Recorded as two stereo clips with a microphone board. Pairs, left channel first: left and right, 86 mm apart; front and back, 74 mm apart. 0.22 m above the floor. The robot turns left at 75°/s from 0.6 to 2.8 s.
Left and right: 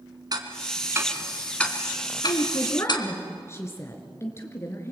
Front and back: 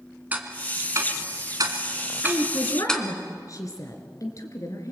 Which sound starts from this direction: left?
A woman speaking, at 2.2 s.